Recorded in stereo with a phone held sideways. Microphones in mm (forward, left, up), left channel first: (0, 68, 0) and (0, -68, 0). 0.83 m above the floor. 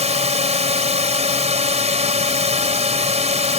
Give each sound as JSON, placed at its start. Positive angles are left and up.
{"t": 0.0, "sound": "a drone", "side_deg": -55}